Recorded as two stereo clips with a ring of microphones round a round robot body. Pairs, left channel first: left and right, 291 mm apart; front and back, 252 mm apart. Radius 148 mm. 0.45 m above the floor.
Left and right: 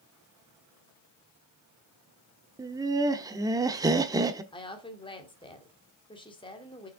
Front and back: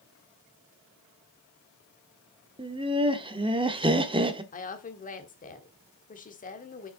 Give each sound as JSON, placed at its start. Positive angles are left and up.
{"t": 2.6, "sound": "laughter", "azimuth_deg": -145, "distance_m": 0.8}
{"t": 4.5, "sound": "a woman speaking", "azimuth_deg": 30, "distance_m": 1.6}